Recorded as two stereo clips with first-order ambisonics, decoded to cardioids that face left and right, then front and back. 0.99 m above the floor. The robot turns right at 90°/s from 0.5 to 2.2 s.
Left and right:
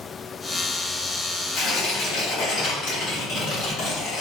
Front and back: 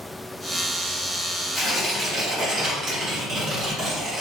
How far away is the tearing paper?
About 1.2 m.